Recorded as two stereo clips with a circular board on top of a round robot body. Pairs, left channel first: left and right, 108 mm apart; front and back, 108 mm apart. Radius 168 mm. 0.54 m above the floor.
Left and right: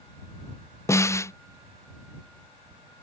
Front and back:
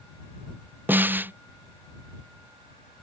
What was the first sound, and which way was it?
A snare drum, 125° left.